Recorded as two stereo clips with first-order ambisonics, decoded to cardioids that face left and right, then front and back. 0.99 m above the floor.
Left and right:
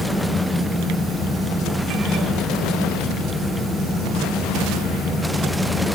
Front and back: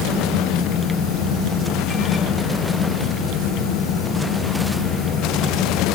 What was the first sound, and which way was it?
Only background noise.